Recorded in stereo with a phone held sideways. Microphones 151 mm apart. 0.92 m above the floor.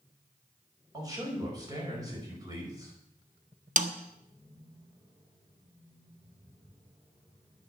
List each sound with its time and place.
0.9 s a man speaking: 25° right (ahead or behind), 5 m
3.8 s a snare drum: 55° right (ahead or behind), 0.8 m